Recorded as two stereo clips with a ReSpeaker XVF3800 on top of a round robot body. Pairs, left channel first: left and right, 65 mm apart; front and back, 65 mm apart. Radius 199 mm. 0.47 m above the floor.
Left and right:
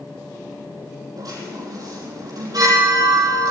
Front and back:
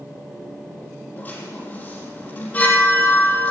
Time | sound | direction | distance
1.2 | a chime | 65° right | 5 m